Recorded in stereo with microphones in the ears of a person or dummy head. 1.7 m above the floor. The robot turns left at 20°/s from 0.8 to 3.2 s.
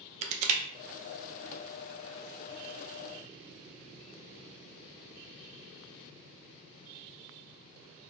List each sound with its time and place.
0.2 s crushing: 40° right (ahead or behind), 0.5 m